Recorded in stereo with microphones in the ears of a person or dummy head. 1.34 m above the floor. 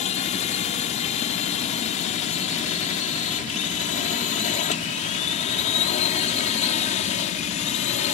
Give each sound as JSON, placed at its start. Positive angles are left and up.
{"t": 0.0, "sound": "a drone", "side_deg": 40}